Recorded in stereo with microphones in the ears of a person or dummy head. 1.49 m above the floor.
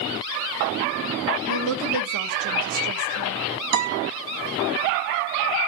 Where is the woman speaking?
65° right (ahead or behind), 1.8 m.